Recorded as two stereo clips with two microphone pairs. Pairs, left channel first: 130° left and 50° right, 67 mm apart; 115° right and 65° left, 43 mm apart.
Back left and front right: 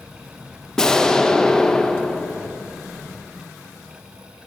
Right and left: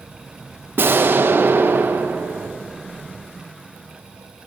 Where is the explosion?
45° left, 0.6 m.